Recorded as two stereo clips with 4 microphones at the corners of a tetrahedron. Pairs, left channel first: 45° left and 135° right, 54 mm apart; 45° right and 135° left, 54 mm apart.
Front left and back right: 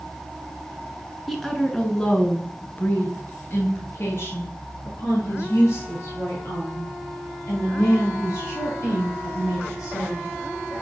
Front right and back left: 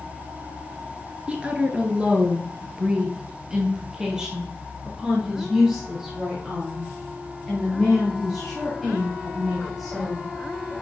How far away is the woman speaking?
About 1.2 m.